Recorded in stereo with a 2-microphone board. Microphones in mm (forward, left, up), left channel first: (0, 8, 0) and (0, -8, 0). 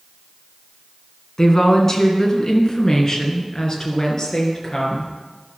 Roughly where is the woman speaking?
Left.